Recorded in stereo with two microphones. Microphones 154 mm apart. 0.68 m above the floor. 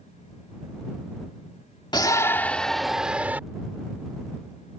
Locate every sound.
1.9 s a shout: 25° left (ahead or behind); by 3.4 s 10° right (ahead or behind)